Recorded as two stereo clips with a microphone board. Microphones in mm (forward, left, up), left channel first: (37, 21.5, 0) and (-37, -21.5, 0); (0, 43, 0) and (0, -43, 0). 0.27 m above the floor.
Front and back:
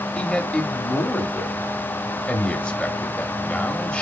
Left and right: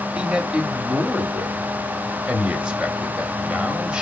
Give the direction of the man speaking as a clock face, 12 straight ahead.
1 o'clock.